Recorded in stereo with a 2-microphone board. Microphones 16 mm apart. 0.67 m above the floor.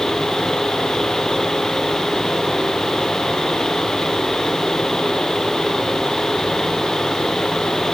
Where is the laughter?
No laughter in this recording.